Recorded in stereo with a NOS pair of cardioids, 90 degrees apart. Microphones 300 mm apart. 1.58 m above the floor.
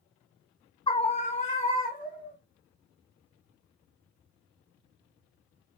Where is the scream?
15° left, 0.5 m; by 2.4 s 25° left, 2.5 m.